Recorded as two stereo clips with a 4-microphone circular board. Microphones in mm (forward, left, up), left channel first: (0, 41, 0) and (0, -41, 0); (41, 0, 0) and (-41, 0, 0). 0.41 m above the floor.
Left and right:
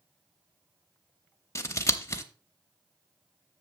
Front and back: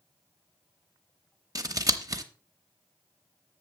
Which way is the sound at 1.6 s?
140° left.